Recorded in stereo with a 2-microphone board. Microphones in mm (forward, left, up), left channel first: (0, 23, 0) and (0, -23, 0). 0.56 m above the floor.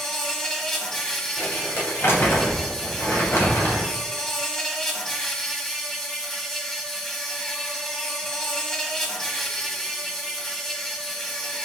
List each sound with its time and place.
0.0 s an insect: 10° left (ahead or behind), 1.6 m
1.4 s crumpling: 65° left (ahead or behind), 3 m